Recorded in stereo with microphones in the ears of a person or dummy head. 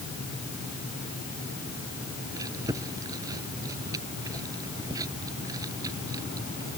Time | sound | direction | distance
2.4 | chewing | 20° right (ahead or behind) | ?